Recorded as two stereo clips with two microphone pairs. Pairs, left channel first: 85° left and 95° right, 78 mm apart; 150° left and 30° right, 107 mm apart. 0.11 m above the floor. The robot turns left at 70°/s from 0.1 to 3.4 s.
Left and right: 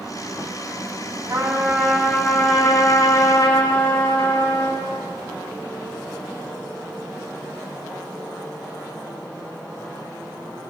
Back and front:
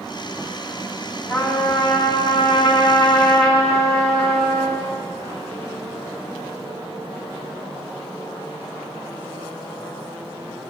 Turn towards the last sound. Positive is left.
turn(degrees=65)